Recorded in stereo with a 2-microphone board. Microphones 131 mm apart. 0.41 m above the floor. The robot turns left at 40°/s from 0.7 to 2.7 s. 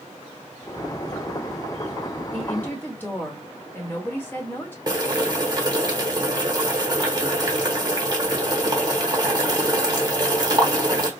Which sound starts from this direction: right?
Boiling, at 4.9 s.